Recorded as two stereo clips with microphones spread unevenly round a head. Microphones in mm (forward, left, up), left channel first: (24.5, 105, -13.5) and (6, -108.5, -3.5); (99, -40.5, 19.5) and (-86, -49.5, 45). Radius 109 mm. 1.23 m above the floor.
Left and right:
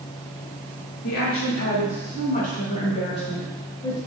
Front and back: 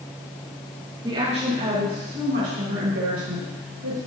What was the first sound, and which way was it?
A woman speaking, 110° left.